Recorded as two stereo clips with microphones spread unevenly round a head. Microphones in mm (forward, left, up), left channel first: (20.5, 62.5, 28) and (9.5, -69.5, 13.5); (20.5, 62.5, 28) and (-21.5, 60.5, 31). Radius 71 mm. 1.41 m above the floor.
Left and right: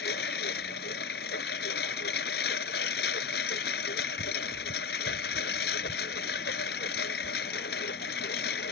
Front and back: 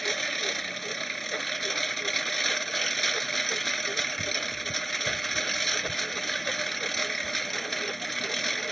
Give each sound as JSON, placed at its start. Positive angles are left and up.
{"t": 0.0, "sound": "a lawn mower", "azimuth_deg": 90}